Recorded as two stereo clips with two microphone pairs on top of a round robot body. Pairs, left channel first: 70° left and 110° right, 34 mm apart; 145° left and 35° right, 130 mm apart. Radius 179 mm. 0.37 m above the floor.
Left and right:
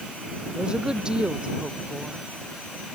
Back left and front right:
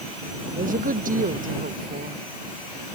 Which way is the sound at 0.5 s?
45° right.